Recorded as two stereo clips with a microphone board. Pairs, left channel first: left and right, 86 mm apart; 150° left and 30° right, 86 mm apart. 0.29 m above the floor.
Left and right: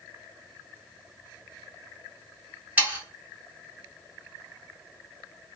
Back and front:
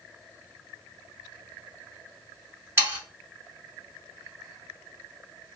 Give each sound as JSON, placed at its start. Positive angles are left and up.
{"t": 2.8, "sound": "sawing", "azimuth_deg": -45, "distance_m": 1.5}